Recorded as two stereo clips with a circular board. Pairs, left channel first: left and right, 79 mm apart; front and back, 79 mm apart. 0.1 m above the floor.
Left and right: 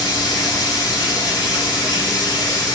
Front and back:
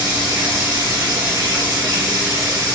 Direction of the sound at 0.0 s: 130° left.